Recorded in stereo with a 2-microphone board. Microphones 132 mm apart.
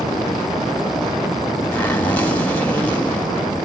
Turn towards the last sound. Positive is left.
turn(degrees=15)  # may be behind; listen again after turning